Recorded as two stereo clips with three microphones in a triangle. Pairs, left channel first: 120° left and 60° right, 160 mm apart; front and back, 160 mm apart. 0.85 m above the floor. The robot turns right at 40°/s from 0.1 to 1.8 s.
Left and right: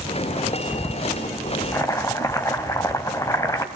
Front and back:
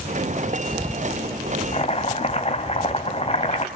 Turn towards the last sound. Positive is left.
turn(degrees=50)